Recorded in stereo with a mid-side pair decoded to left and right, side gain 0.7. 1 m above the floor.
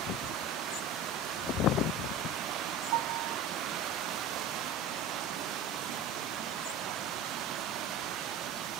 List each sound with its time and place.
2.9 s a piano: 65° right, 1.4 m